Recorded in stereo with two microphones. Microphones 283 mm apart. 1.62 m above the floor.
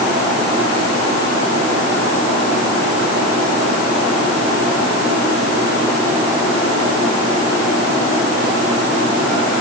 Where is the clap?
I don't hear a clap.